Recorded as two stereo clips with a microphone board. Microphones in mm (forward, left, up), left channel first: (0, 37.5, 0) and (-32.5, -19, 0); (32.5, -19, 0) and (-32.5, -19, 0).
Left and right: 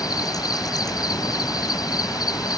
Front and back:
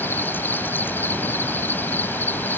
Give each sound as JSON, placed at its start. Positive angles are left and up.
{"t": 0.0, "sound": "an insect", "azimuth_deg": 60}